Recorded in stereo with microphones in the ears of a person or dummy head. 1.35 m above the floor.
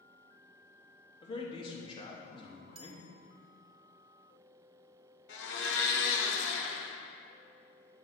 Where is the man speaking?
20° left (ahead or behind), 1.0 m.